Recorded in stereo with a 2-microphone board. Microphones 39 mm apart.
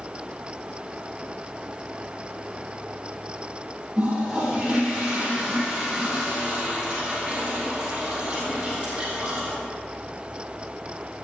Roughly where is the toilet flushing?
Right.